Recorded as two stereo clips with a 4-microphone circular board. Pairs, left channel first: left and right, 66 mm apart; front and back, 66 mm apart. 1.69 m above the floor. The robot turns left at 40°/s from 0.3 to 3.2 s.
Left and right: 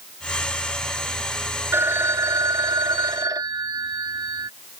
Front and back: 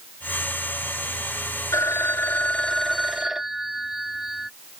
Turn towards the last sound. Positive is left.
turn(degrees=-100)